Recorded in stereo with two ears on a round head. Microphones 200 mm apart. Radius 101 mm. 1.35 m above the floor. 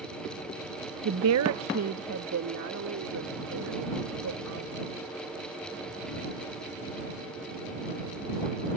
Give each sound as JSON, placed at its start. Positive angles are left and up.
{"t": 1.1, "sound": "a woman speaking", "side_deg": -70}